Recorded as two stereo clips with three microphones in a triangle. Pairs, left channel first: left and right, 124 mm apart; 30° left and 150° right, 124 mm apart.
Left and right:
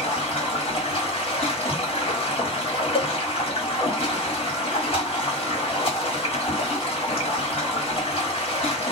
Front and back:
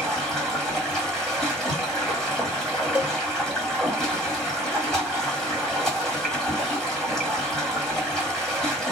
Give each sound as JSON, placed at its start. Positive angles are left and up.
{"t": 0.0, "sound": "running water", "azimuth_deg": 115, "distance_m": 1.4}
{"t": 3.0, "sound": "a cowbell", "azimuth_deg": 130, "distance_m": 0.8}